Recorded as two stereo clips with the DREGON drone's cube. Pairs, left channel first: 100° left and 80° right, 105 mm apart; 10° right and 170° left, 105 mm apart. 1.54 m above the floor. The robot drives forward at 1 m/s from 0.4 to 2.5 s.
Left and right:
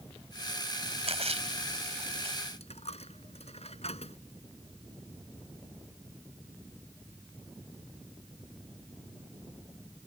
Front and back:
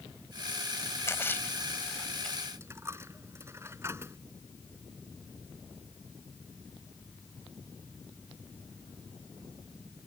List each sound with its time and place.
1.1 s a splash: 75° right; by 2.4 s 95° right
2.6 s a dropped coin: 105° left